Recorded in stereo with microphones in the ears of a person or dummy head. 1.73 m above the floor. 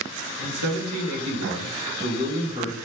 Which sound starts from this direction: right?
A man speaking, at 0.4 s.